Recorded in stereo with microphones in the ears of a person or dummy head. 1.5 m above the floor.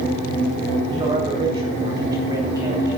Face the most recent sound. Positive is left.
turn(degrees=-15)  # may be behind; listen again after turning